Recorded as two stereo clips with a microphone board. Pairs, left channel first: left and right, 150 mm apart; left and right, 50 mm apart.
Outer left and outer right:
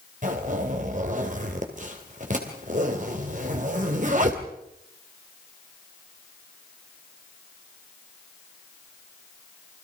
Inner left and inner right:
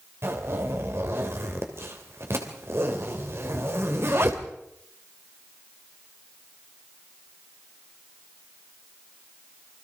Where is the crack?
No crack in this recording.